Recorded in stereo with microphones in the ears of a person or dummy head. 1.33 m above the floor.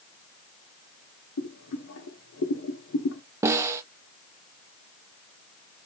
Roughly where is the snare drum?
Centre.